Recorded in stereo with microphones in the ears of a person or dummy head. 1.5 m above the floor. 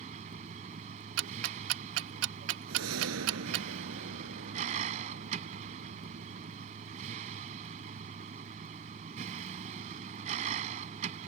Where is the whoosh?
75° right (ahead or behind).